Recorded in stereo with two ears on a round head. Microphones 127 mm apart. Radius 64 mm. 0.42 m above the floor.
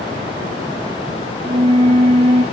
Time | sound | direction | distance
1.4 | a flute | 40° right (ahead or behind) | 1.6 m